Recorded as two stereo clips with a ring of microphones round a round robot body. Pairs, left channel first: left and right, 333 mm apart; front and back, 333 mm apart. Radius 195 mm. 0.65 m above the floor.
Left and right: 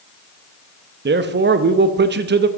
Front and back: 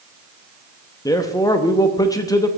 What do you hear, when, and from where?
1.1 s a man speaking: 70° right, 0.7 m